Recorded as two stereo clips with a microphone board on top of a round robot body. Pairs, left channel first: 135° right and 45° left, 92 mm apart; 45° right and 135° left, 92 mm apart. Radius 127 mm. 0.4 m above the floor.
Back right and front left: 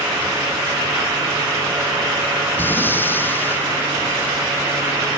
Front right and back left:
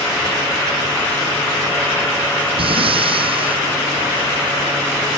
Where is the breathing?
155° left.